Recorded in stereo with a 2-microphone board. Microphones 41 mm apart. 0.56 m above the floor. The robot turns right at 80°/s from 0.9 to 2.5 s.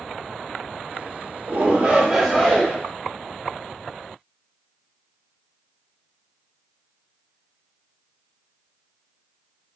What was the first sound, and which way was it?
A shout, 60° right.